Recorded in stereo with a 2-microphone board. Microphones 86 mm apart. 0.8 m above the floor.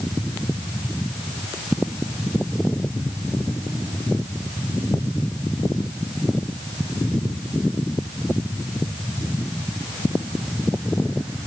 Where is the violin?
No violin in this recording.